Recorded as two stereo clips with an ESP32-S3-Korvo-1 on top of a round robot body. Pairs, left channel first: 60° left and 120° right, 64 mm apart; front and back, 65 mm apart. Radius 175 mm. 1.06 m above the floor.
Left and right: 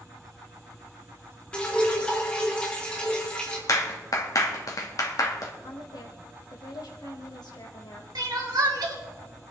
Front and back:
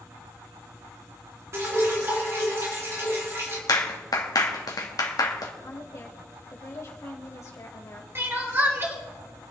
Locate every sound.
1.5 s dripping: 135° left, 3.5 m
3.7 s a clap: 25° left, 1.8 m
5.6 s a woman speaking: 45° left, 2.5 m
8.2 s crying: 130° right, 3 m